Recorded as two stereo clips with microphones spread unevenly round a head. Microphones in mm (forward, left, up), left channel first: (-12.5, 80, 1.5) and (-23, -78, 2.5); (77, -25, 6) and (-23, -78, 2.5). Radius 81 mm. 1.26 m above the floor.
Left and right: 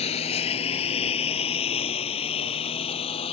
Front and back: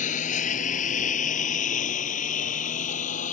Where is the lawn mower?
30° left; by 3.3 s 25° left.